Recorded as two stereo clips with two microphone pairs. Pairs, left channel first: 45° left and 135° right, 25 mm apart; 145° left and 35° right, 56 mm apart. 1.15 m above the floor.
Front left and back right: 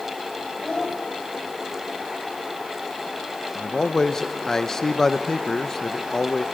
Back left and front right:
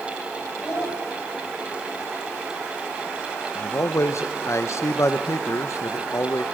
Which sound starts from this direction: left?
A child speaking, at 0.6 s.